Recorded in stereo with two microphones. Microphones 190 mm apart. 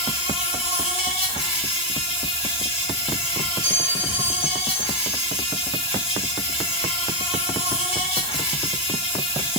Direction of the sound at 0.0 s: 30° left (ahead or behind).